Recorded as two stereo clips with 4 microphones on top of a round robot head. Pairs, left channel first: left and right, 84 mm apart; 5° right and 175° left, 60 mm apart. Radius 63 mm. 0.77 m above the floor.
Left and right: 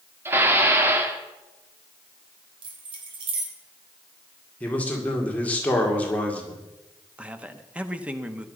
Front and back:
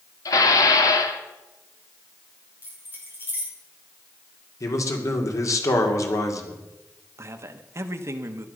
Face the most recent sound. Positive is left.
turn(degrees=-160)